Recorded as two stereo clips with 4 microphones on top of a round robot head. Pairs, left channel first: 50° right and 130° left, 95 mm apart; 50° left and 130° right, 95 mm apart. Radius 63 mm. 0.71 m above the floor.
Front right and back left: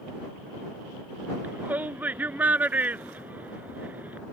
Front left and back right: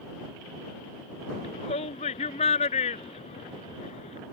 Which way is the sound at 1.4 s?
55° left.